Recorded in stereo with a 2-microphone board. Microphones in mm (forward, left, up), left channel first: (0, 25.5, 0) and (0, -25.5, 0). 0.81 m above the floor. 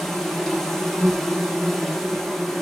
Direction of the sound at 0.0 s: 5° left (ahead or behind).